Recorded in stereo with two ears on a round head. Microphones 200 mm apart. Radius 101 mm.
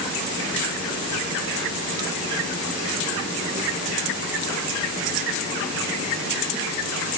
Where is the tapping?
I don't hear tapping.